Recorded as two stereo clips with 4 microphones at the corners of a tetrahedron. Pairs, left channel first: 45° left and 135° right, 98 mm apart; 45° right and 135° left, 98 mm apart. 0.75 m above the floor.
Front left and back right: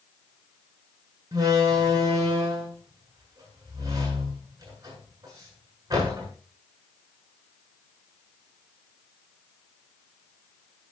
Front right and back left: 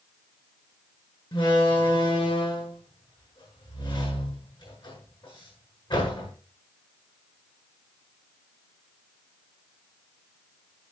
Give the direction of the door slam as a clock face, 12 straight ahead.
3 o'clock.